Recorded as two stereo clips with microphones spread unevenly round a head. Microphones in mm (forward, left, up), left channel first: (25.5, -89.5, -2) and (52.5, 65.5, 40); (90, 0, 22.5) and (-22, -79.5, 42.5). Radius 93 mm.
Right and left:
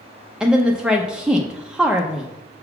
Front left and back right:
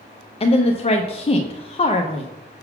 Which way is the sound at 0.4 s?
10° right.